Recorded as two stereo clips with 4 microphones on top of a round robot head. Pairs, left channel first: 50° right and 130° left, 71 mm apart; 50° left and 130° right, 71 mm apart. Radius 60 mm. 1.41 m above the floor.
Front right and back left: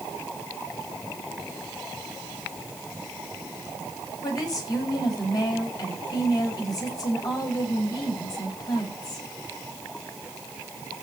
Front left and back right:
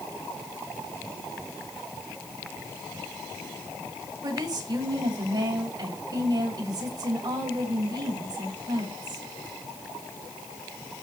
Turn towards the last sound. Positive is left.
turn(degrees=-90)